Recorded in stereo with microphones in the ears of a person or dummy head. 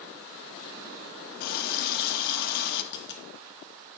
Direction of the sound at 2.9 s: 65° left (ahead or behind).